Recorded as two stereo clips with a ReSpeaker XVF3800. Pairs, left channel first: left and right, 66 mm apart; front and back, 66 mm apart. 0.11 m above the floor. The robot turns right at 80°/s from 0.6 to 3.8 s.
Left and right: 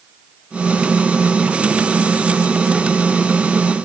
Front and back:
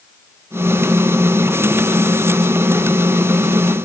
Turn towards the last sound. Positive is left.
No sound to turn to.